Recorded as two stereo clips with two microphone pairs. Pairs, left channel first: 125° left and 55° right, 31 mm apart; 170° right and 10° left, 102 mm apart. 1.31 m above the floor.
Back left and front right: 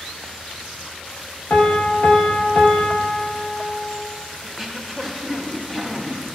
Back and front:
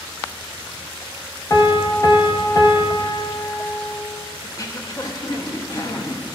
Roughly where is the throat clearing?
Behind right.